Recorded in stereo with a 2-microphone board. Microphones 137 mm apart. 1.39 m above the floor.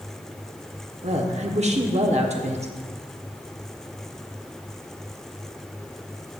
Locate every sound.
1.0 s a woman speaking: 55° right (ahead or behind), 0.9 m